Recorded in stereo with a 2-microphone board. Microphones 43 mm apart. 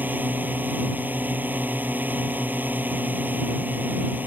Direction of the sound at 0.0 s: 45° right (ahead or behind).